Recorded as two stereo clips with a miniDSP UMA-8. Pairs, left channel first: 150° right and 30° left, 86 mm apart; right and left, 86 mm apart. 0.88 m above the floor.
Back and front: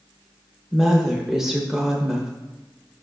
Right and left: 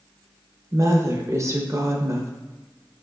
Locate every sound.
0.7 s a woman speaking: 110° left, 0.8 m